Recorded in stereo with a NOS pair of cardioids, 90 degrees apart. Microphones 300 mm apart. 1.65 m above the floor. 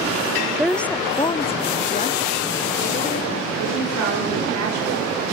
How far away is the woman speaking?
About 0.6 m.